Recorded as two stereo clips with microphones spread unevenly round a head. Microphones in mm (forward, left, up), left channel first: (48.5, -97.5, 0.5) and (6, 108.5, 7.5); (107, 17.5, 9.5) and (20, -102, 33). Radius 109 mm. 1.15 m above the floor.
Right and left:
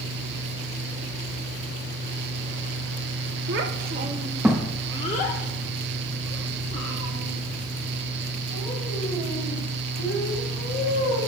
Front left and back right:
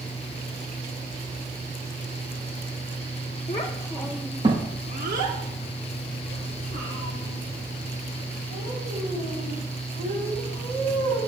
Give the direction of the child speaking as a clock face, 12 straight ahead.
8 o'clock.